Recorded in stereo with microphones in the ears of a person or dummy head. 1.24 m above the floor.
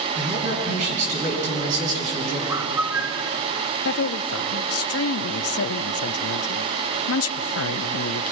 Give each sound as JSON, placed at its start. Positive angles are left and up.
{"t": 0.1, "sound": "a man speaking", "side_deg": -45, "distance_m": 10.0}
{"t": 2.5, "sound": "a bird", "side_deg": -15, "distance_m": 0.6}
{"t": 3.9, "sound": "a woman speaking", "side_deg": 70, "distance_m": 0.8}